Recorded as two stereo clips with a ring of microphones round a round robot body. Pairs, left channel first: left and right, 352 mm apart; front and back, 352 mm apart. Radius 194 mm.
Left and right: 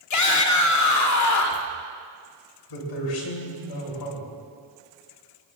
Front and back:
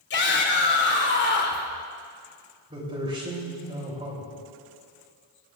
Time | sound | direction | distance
0.1 | a shout | 60° left | 1.7 m
2.7 | a man speaking | 105° left | 3 m